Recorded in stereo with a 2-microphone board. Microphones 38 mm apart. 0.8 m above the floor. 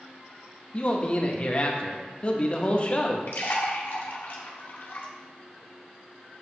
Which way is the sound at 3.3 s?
65° left (ahead or behind).